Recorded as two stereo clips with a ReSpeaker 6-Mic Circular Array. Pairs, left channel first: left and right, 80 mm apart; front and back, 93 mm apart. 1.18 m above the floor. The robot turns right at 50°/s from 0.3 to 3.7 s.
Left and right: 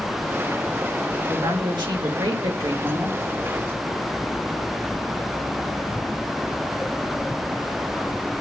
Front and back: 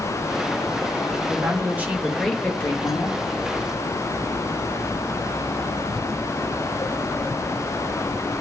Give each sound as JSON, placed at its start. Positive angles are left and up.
{"t": 1.3, "sound": "a woman speaking", "azimuth_deg": -135, "distance_m": 1.7}